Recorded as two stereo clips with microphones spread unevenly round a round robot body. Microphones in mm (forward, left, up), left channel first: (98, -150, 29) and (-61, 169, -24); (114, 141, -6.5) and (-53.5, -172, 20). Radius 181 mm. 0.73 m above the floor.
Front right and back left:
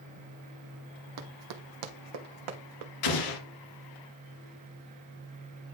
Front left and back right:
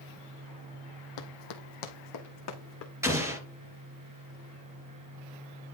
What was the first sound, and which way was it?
Running footsteps, 75° left.